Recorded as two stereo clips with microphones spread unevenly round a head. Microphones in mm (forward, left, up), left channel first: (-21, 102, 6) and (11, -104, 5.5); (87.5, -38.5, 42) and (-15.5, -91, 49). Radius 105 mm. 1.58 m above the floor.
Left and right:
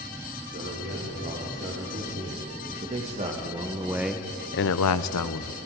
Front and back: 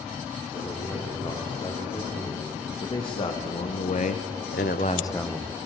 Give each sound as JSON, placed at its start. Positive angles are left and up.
{"t": 0.5, "sound": "a man speaking", "azimuth_deg": -30, "distance_m": 5.0}